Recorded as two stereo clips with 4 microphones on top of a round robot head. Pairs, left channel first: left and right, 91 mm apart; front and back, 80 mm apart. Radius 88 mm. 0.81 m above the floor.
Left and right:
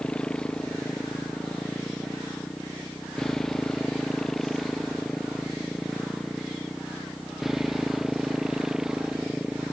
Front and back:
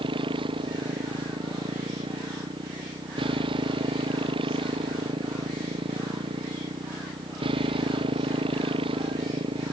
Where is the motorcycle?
170° left; by 9.7 s 175° right.